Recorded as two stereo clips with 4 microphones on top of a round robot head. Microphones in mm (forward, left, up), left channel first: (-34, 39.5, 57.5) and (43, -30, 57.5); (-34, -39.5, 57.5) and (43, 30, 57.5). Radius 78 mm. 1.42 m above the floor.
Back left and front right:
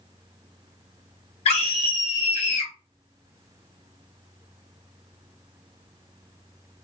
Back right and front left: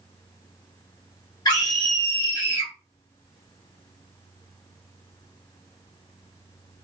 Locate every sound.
1.4 s a scream: 170° left, 1.4 m